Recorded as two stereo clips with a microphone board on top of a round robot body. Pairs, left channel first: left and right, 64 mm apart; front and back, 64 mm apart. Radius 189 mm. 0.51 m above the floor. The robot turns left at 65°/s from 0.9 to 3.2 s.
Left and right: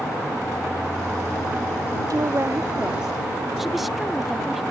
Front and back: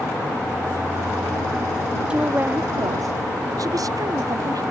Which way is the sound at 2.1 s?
105° right.